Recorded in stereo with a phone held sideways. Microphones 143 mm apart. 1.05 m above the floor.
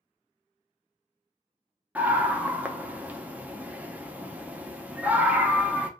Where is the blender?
I don't hear a blender.